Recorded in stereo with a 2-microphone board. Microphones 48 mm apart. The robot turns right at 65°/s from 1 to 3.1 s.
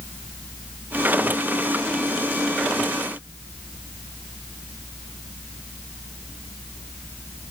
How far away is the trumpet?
I don't hear a trumpet.